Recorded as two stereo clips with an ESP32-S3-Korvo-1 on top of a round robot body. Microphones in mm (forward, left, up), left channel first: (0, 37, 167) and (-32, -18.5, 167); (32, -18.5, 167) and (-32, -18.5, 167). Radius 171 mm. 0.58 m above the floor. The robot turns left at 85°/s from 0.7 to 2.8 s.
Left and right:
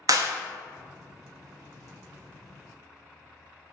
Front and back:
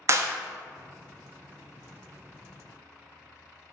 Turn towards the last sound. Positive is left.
turn(degrees=45)